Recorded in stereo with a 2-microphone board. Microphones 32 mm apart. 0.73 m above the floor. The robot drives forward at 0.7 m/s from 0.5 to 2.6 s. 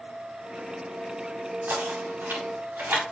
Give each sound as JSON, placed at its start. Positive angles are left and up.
{"t": 1.7, "sound": "knocking", "side_deg": -80, "distance_m": 5.0}